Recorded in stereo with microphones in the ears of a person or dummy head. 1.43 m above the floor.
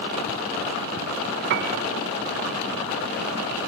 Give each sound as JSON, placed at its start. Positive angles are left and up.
{"t": 1.5, "sound": "a piano", "side_deg": -45, "distance_m": 0.6}